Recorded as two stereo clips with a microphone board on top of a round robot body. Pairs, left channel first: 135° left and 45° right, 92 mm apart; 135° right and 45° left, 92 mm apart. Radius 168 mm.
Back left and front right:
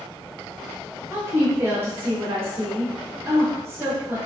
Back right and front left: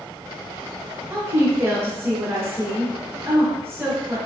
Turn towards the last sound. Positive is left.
turn(degrees=0)